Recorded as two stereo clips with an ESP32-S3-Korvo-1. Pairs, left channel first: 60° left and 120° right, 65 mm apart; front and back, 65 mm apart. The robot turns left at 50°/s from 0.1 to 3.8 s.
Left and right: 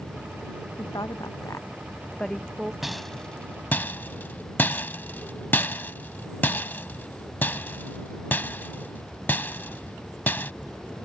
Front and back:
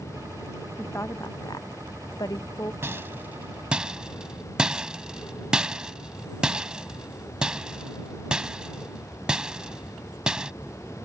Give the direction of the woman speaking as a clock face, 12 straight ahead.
10 o'clock.